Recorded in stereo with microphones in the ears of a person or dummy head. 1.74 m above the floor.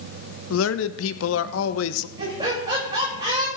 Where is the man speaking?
85° left, 0.9 m.